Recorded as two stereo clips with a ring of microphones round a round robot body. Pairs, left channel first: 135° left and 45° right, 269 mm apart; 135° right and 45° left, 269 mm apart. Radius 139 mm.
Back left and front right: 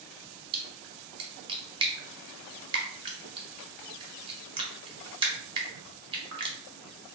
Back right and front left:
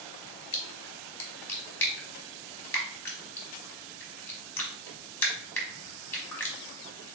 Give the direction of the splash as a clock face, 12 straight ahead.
2 o'clock.